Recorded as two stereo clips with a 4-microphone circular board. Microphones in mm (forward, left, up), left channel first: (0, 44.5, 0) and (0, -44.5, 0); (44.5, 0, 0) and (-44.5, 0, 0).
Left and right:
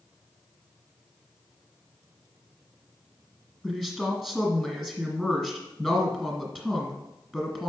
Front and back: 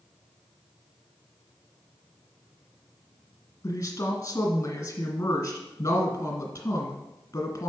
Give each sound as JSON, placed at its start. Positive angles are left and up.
{"t": 3.6, "sound": "a woman speaking", "azimuth_deg": 20, "distance_m": 1.7}